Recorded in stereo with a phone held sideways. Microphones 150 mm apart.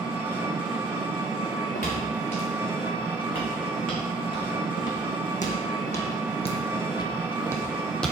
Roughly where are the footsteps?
Left.